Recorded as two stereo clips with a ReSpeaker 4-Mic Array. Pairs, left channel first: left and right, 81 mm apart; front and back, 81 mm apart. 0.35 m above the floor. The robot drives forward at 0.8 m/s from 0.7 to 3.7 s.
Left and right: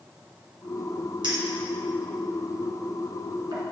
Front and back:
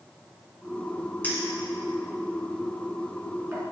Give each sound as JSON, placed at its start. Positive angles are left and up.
{"t": 1.2, "sound": "a clink", "azimuth_deg": -70, "distance_m": 2.0}